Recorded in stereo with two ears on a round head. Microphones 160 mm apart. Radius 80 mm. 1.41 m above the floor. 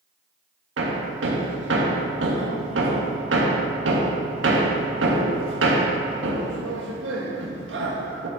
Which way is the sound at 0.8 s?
75° right (ahead or behind).